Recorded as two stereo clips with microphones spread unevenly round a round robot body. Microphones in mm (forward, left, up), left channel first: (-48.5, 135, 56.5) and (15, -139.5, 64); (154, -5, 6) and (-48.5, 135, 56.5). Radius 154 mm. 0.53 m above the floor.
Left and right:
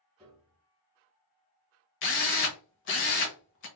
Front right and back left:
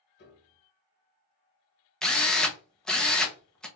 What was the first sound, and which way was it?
A piano, 15° left.